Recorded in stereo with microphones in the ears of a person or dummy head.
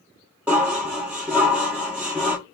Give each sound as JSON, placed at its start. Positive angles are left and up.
{"t": 0.5, "sound": "dishes clattering", "side_deg": -10, "distance_m": 0.8}